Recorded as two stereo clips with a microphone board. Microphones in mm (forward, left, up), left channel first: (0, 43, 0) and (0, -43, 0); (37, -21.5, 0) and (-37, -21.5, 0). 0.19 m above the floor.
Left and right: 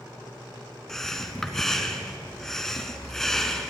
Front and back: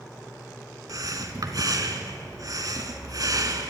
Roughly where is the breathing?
Behind.